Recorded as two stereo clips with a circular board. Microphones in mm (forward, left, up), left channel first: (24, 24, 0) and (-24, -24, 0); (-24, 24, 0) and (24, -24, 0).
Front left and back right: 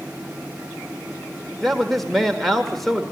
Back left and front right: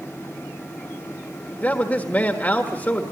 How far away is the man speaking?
About 1.5 m.